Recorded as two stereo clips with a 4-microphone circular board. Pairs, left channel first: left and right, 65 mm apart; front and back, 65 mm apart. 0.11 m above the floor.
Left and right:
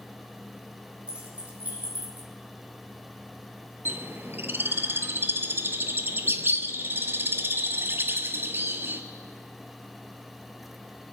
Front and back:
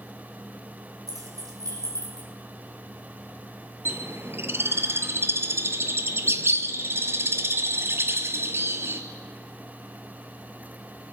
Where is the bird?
140° right, 0.8 m.